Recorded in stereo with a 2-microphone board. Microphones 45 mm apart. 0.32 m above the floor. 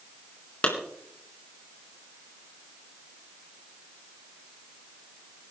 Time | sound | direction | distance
0.6 | a clap | 30° left (ahead or behind) | 3 m